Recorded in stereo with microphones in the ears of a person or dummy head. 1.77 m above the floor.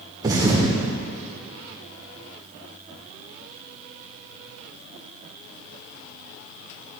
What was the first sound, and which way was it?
A thud, 25° right (ahead or behind).